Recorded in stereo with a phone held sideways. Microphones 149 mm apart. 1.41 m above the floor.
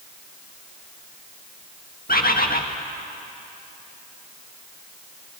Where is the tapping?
I don't hear tapping.